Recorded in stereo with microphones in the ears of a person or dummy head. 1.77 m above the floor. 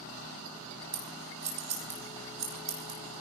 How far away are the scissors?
About 4.5 m.